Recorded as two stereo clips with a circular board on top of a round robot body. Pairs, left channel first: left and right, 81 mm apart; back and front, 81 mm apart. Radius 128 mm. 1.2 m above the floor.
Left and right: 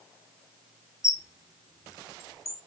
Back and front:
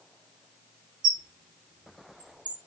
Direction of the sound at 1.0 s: 40° left.